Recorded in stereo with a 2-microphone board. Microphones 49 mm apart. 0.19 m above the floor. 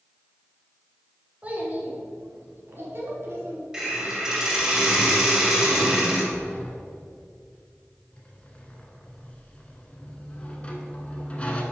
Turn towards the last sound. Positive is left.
turn(degrees=25)  # may be behind; listen again after turning